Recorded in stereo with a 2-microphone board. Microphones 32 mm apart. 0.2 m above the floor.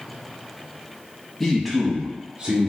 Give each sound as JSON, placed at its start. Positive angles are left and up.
{"t": 1.4, "sound": "a man speaking", "side_deg": 10, "distance_m": 1.1}